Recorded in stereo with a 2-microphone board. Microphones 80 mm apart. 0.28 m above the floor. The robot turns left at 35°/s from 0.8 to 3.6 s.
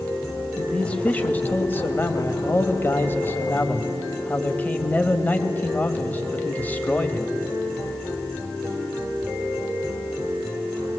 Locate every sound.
0.6 s a man speaking: 15° left (ahead or behind), 1.2 m; by 7.3 s 20° left (ahead or behind), 1.2 m